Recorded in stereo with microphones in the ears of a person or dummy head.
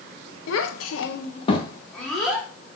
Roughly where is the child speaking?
Left.